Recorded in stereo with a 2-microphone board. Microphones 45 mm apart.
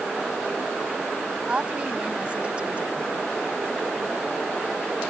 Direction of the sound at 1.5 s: 25° right (ahead or behind).